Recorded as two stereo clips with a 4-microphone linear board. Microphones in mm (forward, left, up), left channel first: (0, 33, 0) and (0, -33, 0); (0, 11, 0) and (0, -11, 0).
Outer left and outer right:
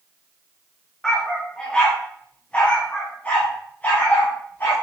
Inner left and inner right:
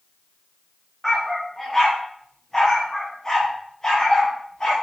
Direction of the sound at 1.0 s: 5° left (ahead or behind).